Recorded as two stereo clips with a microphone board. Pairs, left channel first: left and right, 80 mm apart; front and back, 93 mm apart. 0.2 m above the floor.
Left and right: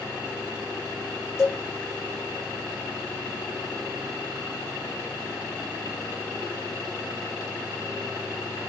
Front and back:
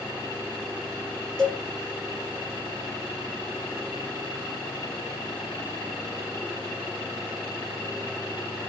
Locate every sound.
1.4 s a cowbell: 80° left, 1.3 m